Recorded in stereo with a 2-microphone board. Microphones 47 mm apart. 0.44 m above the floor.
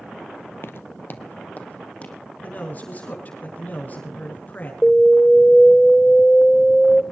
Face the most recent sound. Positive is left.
turn(degrees=10)  # may be behind; listen again after turning